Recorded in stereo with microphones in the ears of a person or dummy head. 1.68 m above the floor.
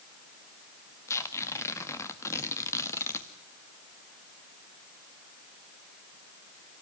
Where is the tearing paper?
15° left (ahead or behind), 1.7 m.